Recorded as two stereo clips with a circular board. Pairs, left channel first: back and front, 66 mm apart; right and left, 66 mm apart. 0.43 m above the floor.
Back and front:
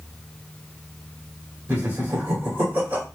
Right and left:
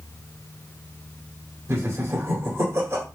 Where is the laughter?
55° left, 1.5 m.